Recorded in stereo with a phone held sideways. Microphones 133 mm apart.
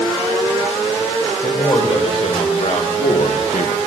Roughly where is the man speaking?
Left.